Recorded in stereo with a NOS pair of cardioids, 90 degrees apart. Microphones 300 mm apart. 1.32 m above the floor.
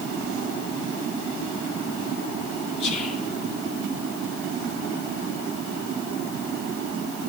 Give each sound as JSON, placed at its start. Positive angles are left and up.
{"t": 2.8, "sound": "whispering", "azimuth_deg": 55, "distance_m": 2.5}